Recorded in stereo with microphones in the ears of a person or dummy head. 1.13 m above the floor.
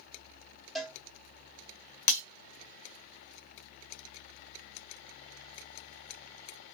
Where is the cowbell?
Centre (ahead or behind), 1.2 m.